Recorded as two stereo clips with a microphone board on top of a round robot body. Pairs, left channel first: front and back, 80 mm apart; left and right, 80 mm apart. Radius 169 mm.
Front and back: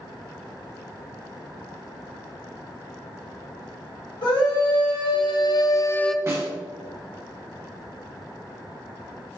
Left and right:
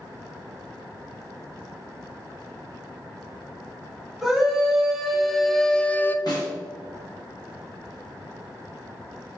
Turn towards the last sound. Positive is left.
turn(degrees=120)